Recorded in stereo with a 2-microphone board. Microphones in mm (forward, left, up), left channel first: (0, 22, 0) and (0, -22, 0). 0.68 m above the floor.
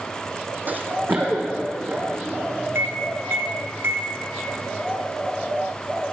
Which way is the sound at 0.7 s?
45° right (ahead or behind).